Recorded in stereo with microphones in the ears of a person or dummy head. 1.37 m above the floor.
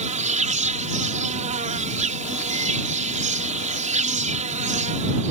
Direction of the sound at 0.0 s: 45° right (ahead or behind).